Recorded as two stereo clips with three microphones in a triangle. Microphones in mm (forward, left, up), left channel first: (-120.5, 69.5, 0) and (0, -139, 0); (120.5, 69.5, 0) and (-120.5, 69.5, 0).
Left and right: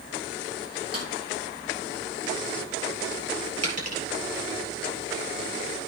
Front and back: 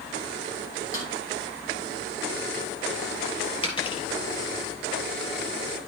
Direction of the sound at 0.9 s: 40° right.